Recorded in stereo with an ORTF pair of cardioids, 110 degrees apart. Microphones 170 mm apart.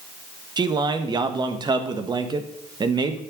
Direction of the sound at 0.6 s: 25° right.